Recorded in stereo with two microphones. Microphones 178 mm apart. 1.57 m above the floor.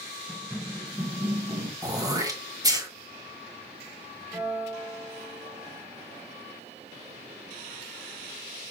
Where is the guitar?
Centre (ahead or behind), 3.5 m.